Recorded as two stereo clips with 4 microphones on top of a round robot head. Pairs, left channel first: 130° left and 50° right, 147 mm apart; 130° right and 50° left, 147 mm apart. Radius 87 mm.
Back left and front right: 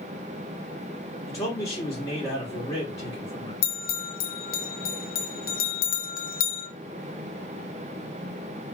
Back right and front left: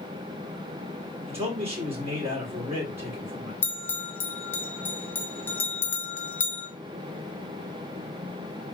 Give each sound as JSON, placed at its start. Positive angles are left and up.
{"t": 1.3, "sound": "a man speaking", "azimuth_deg": 100, "distance_m": 1.4}
{"t": 3.6, "sound": "a bell", "azimuth_deg": 150, "distance_m": 0.7}